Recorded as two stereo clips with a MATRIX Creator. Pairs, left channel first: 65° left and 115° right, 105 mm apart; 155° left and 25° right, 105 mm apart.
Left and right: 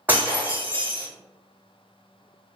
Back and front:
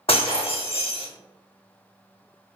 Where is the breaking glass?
175° left, 0.8 m.